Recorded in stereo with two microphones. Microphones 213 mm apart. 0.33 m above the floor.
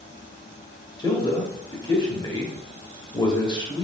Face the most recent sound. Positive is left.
turn(degrees=20)  # may be behind; listen again after turning